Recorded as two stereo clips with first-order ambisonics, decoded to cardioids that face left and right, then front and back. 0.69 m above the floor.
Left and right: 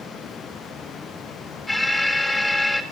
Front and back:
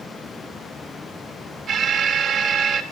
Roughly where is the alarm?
Behind.